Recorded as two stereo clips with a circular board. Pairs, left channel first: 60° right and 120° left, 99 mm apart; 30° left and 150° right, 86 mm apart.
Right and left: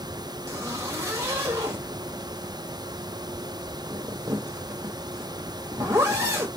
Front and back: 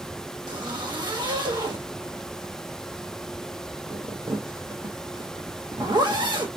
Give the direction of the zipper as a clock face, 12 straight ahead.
6 o'clock.